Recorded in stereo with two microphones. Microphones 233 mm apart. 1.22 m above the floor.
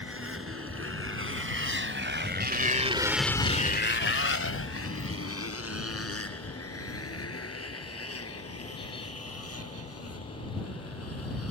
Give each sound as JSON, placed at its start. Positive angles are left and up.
{"t": 0.0, "sound": "a motorcycle", "side_deg": -70}